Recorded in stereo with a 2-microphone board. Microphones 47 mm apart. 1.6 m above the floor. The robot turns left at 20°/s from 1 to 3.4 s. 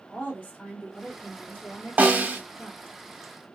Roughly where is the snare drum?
Right.